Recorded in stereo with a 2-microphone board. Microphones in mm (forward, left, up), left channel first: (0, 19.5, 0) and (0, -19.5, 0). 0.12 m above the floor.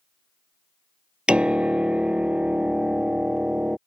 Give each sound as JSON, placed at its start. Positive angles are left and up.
{"t": 1.3, "sound": "a piano", "side_deg": -30}